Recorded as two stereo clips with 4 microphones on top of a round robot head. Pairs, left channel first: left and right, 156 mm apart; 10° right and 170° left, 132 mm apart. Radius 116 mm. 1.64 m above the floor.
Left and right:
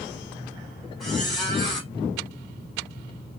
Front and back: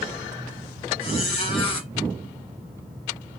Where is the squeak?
Straight ahead, 0.7 m.